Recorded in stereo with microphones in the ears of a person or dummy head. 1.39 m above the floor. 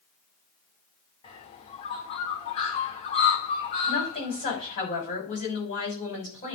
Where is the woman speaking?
35° left (ahead or behind), 6 m.